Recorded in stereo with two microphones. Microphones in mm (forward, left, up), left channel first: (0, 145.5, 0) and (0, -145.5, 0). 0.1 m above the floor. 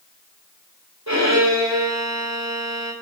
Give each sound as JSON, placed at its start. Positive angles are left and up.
{"t": 1.1, "sound": "a violin", "side_deg": -65, "distance_m": 4.0}